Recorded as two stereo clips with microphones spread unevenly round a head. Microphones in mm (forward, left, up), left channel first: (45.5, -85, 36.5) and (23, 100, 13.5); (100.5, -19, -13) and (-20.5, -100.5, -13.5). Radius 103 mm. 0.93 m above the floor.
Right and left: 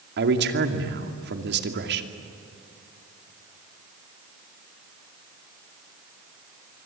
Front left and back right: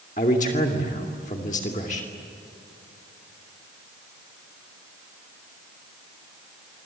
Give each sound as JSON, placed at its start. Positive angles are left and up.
{"t": 0.2, "sound": "a man speaking", "azimuth_deg": 90, "distance_m": 2.5}